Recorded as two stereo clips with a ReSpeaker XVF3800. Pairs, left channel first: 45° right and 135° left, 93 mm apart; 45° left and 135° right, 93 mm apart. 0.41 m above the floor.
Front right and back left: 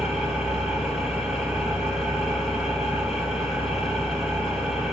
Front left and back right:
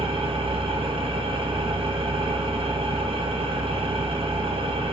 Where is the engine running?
140° right, 3.5 m.